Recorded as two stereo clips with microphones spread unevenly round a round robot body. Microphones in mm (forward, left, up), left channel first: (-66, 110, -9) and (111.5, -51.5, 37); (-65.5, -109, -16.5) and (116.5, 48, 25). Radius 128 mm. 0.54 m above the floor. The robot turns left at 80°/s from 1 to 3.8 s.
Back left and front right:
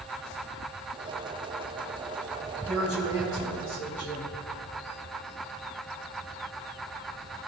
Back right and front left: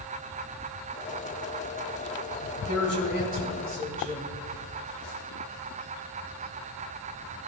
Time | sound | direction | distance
2.7 | a woman speaking | 115° right | 3 m